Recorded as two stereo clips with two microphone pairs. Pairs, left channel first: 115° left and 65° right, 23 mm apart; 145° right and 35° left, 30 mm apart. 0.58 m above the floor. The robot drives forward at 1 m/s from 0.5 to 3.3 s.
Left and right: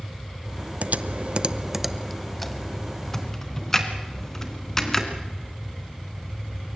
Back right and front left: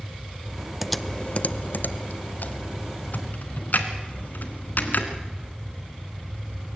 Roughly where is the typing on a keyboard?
Ahead right.